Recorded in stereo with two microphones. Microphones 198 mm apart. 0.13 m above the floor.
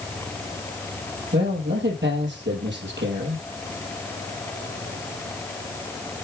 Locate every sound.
1.3 s a man speaking: 70° right (ahead or behind), 3.5 m